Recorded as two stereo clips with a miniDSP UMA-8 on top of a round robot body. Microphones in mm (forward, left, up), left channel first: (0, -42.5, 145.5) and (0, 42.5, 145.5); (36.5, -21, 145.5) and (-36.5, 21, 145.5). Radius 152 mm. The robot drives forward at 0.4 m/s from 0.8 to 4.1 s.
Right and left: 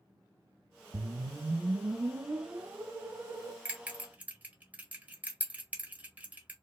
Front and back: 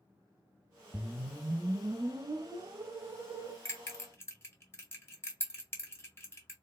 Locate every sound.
0.9 s a whoosh: 70° left, 1.0 m; by 3.5 s 145° left, 1.3 m
3.6 s a bell: 20° left, 1.8 m